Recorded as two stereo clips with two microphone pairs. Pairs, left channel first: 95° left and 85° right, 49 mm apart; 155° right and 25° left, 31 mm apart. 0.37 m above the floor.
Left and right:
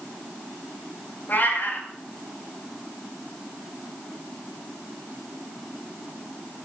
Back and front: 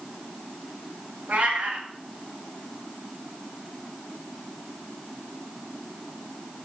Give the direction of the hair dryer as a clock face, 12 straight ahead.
I don't hear a hair dryer.